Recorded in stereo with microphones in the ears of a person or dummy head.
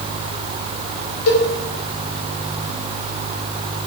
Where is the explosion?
No explosion in this recording.